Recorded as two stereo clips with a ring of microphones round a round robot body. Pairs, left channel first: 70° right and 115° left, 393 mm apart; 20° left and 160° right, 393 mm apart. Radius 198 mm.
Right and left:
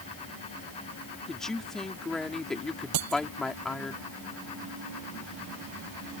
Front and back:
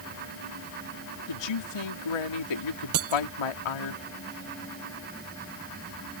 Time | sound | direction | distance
1.3 | a man speaking | 20° left | ?
2.9 | breaking glass | 150° left | ?